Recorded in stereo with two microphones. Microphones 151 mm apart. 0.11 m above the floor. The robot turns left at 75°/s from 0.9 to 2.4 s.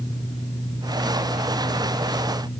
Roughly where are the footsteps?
I don't hear footsteps.